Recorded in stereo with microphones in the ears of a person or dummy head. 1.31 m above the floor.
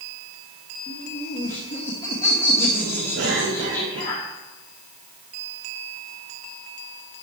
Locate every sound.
0.9 s laughter: 45° left (ahead or behind), 2.5 m
3.1 s a cough: 65° right (ahead or behind), 3.5 m